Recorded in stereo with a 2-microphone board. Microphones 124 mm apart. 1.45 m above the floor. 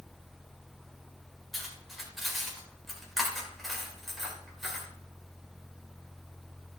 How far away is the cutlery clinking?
About 3.5 m.